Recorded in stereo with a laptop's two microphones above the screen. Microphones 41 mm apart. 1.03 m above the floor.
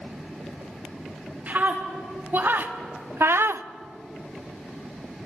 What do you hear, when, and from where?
1.5 s a scream: 45° right (ahead or behind), 3 m; by 3.7 s 70° right (ahead or behind), 0.7 m